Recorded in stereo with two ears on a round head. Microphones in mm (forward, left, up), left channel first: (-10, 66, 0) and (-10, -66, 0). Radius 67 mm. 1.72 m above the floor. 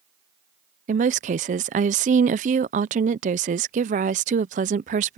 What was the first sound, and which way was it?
A woman speaking, 50° right (ahead or behind).